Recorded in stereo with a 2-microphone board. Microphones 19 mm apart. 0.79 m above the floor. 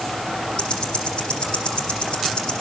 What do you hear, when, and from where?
0.6 s ticking: 65° left (ahead or behind), 8 m